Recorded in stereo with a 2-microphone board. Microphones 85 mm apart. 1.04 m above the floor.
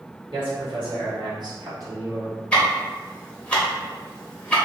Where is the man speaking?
80° right, 1.7 m; by 2.4 s 25° right (ahead or behind), 1.3 m.